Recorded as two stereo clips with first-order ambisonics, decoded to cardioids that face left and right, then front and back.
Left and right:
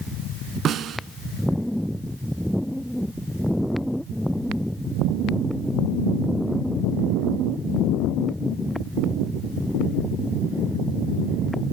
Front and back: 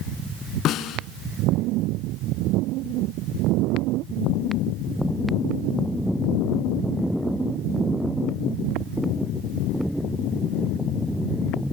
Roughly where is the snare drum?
Ahead right.